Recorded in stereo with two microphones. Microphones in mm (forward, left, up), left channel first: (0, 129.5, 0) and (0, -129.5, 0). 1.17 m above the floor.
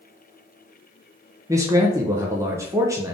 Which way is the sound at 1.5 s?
10° right (ahead or behind).